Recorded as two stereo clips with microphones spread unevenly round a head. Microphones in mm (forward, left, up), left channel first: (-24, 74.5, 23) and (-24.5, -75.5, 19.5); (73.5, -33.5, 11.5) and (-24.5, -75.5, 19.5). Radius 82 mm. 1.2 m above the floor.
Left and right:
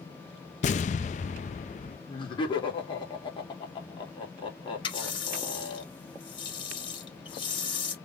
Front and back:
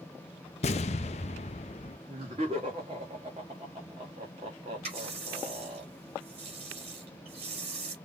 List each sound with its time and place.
0.6 s an explosion: 50° left, 0.5 m
2.1 s laughter: 150° left, 3.5 m
4.8 s a running tap: 145° left, 3.5 m